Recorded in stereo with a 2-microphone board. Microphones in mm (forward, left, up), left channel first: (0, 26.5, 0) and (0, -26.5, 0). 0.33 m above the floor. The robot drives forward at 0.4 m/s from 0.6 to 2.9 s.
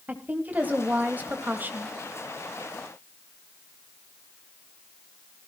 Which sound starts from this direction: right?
A woman speaking, at 0.1 s.